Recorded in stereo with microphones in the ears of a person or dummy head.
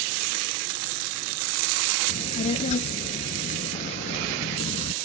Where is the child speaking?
45° left (ahead or behind).